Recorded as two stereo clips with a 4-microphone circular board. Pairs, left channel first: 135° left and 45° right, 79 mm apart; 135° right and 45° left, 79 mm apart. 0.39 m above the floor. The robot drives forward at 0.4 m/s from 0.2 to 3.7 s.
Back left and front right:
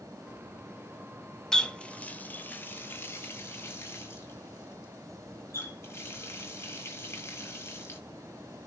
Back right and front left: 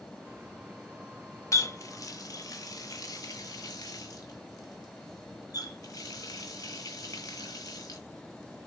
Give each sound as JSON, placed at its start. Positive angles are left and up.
{"t": 1.5, "sound": "a running tap", "azimuth_deg": -145, "distance_m": 0.6}